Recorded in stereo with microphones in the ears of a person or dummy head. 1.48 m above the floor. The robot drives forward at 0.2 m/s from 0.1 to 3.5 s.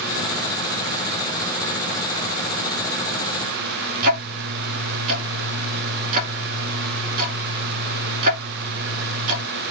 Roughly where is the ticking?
Right.